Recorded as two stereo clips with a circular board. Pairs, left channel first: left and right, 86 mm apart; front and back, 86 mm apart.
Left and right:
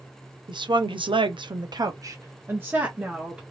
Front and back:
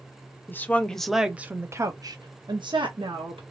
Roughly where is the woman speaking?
Ahead right.